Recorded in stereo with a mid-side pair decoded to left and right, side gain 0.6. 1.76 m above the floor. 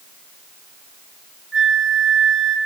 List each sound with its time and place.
1.5 s a flute: 20° right, 4 m